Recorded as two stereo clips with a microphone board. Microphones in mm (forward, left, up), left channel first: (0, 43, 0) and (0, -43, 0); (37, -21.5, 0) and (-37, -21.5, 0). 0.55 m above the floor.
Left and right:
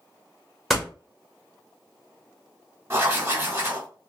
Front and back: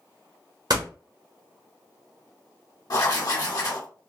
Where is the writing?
30° right, 1.4 m.